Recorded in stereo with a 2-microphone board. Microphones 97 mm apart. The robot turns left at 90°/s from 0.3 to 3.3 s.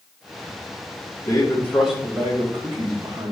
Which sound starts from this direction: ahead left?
A man speaking, at 1.2 s.